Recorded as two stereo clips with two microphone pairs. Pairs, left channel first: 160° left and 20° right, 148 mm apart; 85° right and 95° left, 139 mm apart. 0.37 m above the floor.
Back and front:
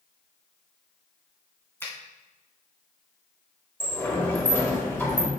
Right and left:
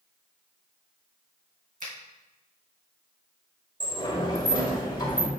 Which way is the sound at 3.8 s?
130° right.